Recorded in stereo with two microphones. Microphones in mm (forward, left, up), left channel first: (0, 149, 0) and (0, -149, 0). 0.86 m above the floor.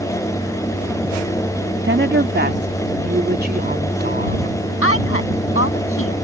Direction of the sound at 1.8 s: 40° right (ahead or behind).